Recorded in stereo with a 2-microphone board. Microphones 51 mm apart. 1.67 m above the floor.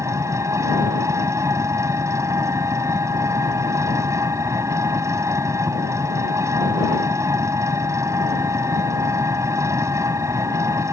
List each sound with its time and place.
0.0 s an engine running: 80° right